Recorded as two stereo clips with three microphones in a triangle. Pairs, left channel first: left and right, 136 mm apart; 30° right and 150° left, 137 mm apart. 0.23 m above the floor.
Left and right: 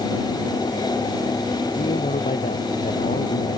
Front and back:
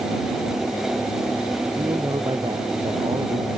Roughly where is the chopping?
I don't hear chopping.